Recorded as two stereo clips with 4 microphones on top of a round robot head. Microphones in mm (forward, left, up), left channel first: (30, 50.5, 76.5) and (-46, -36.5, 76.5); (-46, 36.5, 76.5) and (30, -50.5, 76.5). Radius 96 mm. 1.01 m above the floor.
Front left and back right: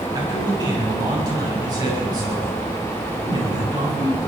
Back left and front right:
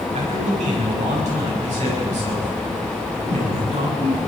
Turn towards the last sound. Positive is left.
turn(degrees=-75)